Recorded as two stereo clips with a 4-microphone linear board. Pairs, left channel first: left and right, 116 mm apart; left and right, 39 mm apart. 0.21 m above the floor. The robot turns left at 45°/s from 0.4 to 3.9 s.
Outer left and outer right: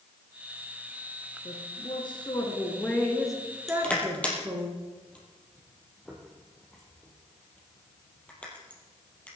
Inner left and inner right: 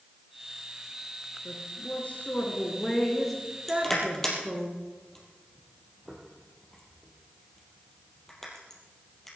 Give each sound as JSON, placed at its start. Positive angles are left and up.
{"t": 1.4, "sound": "a woman speaking", "azimuth_deg": 80, "distance_m": 3.5}
{"t": 3.7, "sound": "crushing", "side_deg": 0, "distance_m": 4.0}